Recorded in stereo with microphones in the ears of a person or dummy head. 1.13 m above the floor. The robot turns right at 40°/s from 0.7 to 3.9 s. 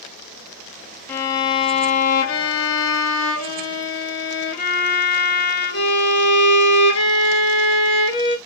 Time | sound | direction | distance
1.1 | a violin | 10° left | 1.5 m